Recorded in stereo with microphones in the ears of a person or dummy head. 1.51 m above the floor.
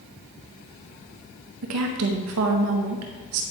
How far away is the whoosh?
I don't hear a whoosh.